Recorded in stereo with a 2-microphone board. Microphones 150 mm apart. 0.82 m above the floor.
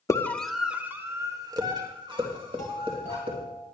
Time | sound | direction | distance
0.1 | a scream | 20° left (ahead or behind) | 1.3 m
2.6 | a doorbell | 55° right (ahead or behind) | 8.5 m